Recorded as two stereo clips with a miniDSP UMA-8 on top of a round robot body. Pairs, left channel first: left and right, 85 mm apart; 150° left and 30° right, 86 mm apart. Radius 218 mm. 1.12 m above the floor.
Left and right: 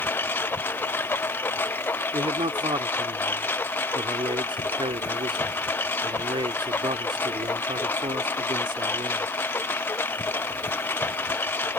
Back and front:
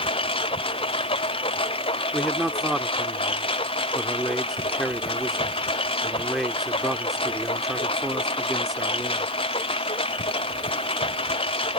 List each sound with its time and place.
0.0 s a lawn mower: 160° left
2.1 s a man speaking: 120° right